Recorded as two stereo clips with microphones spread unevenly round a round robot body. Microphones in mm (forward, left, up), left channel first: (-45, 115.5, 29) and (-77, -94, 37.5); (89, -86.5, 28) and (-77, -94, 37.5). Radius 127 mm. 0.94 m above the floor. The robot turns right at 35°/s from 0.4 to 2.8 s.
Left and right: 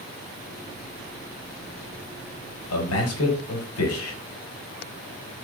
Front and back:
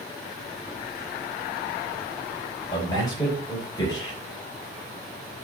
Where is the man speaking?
75° left, 4 m.